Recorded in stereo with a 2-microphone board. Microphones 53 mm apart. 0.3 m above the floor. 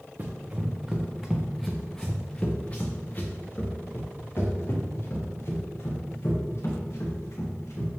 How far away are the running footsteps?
About 1.3 m.